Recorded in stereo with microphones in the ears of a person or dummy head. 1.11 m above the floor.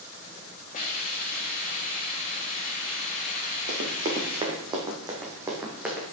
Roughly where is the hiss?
Left.